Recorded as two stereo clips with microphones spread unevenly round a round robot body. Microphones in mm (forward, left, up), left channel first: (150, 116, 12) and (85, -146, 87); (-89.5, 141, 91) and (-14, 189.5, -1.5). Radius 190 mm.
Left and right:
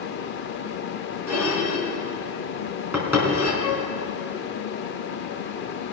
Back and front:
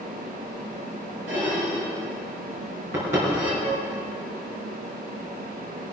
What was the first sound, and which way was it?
Dishes clattering, 20° right.